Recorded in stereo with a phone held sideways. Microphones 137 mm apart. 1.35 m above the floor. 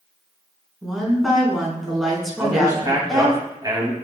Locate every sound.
0.8 s a woman speaking: centre (ahead or behind), 4 m
2.4 s a man speaking: 30° right (ahead or behind), 2.5 m